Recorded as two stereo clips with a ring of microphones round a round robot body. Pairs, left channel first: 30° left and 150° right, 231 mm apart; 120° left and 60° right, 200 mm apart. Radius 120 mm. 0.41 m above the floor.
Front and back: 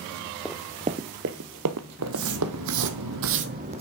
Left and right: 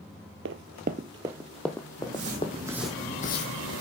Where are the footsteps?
115° right, 2 m; by 3.8 s 145° left, 1.4 m.